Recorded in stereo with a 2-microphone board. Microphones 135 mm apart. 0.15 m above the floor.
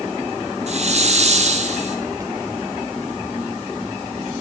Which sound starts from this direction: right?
A hiss, at 0.7 s.